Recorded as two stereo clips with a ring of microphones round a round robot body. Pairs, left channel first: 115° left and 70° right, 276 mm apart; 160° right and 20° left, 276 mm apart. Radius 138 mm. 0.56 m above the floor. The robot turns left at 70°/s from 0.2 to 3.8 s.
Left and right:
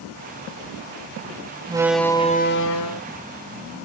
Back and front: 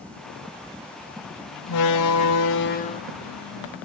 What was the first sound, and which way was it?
A door slam, 140° right.